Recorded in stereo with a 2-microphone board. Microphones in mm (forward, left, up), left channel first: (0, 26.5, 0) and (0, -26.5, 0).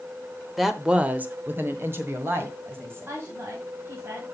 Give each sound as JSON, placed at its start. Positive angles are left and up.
{"t": 0.6, "sound": "a woman speaking", "side_deg": -5, "distance_m": 0.9}
{"t": 3.1, "sound": "a woman speaking", "side_deg": -45, "distance_m": 2.5}